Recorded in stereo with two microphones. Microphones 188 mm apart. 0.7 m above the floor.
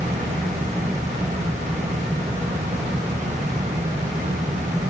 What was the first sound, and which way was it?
Only background noise.